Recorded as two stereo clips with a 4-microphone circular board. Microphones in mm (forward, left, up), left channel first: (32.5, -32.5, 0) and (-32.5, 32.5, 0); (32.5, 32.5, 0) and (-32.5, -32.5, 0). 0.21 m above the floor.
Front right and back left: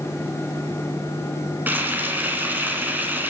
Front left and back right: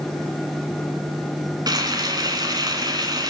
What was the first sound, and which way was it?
Frying, 160° right.